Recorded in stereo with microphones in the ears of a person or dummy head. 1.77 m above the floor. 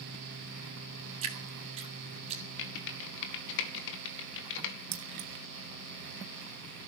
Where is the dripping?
35° right (ahead or behind), 2.5 m.